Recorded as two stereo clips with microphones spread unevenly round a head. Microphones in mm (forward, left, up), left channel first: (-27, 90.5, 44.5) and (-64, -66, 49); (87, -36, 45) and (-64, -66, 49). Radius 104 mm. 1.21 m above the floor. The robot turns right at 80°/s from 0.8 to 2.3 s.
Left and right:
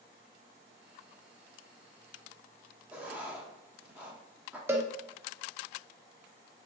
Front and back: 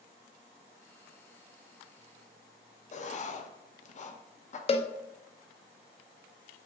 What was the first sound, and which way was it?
Writing, 20° right.